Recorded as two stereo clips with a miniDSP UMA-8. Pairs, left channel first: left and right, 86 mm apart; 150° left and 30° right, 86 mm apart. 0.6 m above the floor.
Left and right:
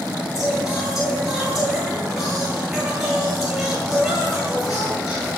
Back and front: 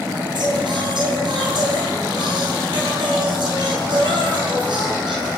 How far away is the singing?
About 9.5 m.